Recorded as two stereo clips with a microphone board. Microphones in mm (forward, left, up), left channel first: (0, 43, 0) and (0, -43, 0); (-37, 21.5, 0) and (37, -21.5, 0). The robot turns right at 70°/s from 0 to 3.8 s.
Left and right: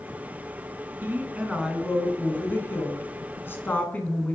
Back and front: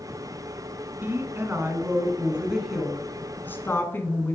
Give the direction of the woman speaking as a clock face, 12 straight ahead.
2 o'clock.